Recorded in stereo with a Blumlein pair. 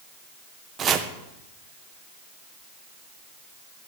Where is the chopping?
25° right, 1.5 m.